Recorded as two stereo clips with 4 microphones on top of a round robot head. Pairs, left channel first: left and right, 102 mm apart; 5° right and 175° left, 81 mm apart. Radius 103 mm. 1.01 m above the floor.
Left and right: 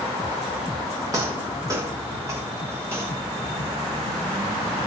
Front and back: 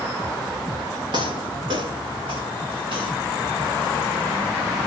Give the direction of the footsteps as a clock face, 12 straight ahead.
5 o'clock.